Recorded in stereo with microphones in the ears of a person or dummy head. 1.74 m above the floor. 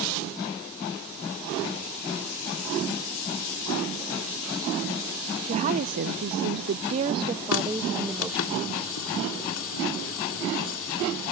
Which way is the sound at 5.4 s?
35° right (ahead or behind).